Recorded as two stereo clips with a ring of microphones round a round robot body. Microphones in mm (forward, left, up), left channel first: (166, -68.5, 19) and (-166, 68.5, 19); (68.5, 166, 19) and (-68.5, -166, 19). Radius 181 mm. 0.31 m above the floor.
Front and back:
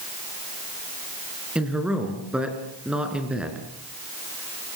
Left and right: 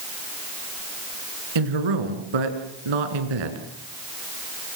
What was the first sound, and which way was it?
A man speaking, 115° right.